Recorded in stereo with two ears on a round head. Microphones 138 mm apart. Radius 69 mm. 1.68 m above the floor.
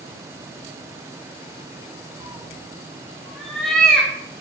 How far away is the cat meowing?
About 0.9 m.